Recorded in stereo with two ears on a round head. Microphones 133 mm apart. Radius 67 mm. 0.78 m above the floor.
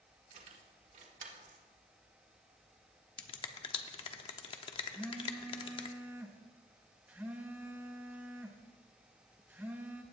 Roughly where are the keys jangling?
Right.